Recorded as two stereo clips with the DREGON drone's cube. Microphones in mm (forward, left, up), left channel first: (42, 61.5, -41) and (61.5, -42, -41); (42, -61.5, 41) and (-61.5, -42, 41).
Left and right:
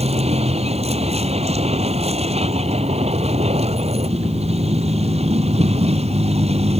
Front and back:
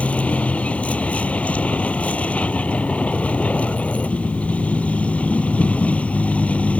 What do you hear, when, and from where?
0.0 s a vehicle: 90° right